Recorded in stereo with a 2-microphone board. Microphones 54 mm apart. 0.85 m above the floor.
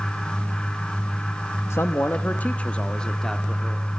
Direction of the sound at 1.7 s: 50° left (ahead or behind).